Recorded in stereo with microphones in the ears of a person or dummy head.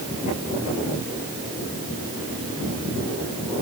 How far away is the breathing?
I don't hear breathing.